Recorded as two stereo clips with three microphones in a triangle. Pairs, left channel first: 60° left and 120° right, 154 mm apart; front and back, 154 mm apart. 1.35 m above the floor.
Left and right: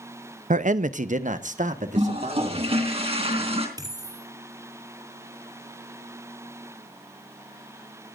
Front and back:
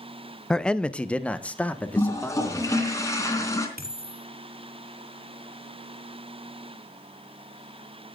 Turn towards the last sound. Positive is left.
turn(degrees=175)